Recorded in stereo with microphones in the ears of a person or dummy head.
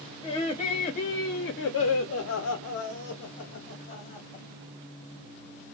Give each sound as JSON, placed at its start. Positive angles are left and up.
{"t": 0.2, "sound": "laughter", "side_deg": 25, "distance_m": 1.4}